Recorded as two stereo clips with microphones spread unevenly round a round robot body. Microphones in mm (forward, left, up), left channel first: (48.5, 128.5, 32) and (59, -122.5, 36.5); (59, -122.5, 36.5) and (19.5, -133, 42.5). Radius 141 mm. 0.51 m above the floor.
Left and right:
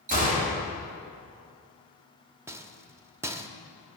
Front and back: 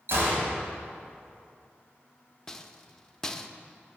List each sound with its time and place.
0.1 s a gunshot: 150° right, 3 m
2.5 s a rattle: 20° right, 0.6 m